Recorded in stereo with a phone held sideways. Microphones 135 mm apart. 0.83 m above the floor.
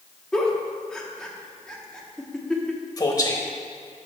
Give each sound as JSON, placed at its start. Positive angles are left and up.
{"t": 0.3, "sound": "a giggle", "side_deg": 5, "distance_m": 0.9}
{"t": 3.0, "sound": "a man speaking", "side_deg": 30, "distance_m": 0.9}